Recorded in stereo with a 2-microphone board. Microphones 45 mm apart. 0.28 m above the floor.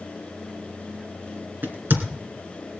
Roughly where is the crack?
Right.